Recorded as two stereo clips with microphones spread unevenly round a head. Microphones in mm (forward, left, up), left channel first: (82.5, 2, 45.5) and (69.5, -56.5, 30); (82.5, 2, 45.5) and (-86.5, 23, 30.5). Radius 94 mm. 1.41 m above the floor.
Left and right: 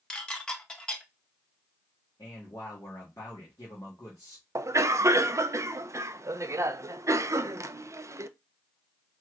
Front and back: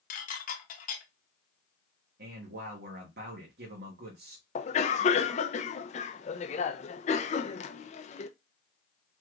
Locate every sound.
0.1 s dishes clattering: 20° left, 0.9 m
2.2 s a man speaking: 145° left, 1.3 m
4.5 s a cough: 60° right, 0.6 m